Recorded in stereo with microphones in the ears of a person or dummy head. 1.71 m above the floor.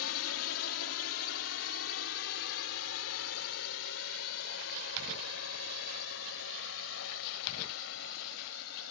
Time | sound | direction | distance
0.0 | a drone | 85° left | ?